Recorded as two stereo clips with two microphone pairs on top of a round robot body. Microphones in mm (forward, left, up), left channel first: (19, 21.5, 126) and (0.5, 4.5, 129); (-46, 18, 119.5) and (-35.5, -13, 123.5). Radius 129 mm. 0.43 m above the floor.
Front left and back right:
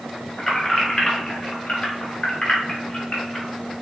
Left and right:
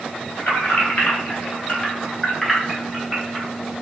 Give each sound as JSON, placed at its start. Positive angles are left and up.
{"t": 0.4, "sound": "keys jangling", "azimuth_deg": 95, "distance_m": 1.2}